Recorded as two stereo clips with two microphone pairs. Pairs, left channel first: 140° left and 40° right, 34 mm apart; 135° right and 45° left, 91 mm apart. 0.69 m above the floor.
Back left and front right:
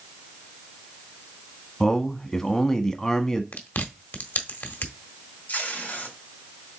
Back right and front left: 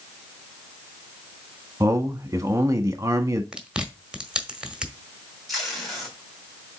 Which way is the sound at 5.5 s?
135° left.